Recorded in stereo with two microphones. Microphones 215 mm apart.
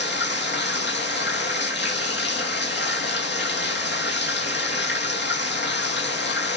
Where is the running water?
55° left (ahead or behind), 1.6 m.